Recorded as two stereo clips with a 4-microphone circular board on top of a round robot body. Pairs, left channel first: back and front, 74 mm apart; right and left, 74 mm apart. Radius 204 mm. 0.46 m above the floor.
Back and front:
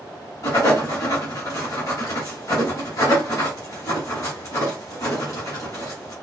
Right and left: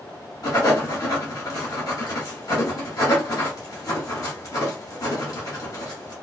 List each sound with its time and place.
0.4 s writing: 135° right, 1.4 m